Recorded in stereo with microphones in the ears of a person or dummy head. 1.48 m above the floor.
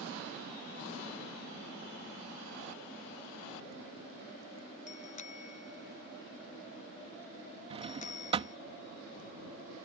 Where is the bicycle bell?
40° left (ahead or behind).